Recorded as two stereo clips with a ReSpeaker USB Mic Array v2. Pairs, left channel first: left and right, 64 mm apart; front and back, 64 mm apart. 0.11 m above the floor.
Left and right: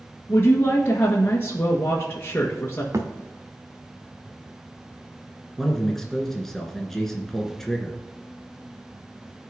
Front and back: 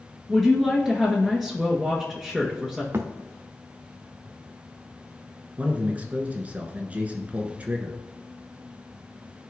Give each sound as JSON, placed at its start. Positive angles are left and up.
{"t": 0.3, "sound": "a woman speaking", "azimuth_deg": 85, "distance_m": 1.5}
{"t": 2.9, "sound": "a thud", "azimuth_deg": -130, "distance_m": 1.2}
{"t": 5.6, "sound": "a man speaking", "azimuth_deg": 165, "distance_m": 1.4}